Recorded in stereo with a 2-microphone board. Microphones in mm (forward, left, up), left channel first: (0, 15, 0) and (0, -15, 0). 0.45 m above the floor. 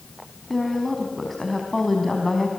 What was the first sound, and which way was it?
A woman speaking, 5° left (ahead or behind).